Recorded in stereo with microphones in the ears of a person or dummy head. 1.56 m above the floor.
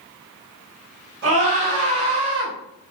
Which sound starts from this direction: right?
A scream, at 1.2 s.